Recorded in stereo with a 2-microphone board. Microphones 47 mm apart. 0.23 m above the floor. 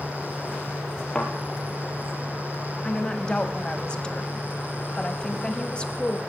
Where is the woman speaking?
20° left (ahead or behind), 1.3 m.